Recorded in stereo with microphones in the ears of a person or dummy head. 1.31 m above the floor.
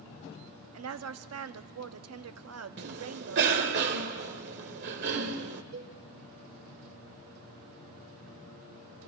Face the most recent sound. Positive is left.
turn(degrees=-65)  # may be behind; listen again after turning